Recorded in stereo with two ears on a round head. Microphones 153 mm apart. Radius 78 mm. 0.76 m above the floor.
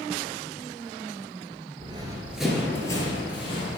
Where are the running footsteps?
35° right (ahead or behind), 0.8 m; by 3.8 s 35° left (ahead or behind), 1.6 m.